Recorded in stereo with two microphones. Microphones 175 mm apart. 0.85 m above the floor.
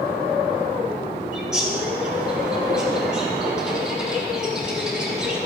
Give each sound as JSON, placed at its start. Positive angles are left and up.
{"t": 1.3, "sound": "a bird", "side_deg": -5, "distance_m": 3.5}